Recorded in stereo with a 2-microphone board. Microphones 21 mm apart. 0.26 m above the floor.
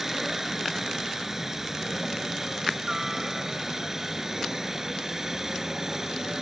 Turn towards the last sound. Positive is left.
turn(degrees=-25)  # may be behind; listen again after turning